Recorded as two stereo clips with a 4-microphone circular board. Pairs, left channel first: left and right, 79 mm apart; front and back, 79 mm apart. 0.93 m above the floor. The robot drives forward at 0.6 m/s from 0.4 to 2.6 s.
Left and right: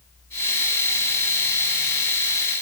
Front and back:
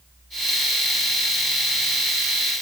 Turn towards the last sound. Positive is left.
No sound to turn to.